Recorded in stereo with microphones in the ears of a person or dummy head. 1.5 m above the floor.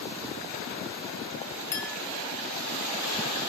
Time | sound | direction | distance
1.7 | a clink | 15° left (ahead or behind) | 2.5 m